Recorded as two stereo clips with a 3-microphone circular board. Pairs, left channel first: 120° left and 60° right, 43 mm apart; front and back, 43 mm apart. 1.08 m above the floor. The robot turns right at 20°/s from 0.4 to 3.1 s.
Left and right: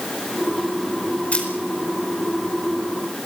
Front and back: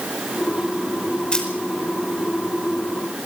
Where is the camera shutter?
65° left, 5 m; by 1.5 s 70° left, 5 m.